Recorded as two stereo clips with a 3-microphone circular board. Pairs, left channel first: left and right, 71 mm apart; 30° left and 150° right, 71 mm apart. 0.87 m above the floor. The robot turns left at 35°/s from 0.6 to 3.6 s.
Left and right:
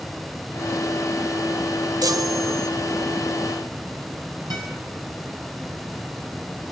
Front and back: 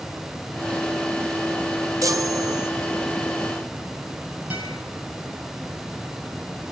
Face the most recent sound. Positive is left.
turn(degrees=-80)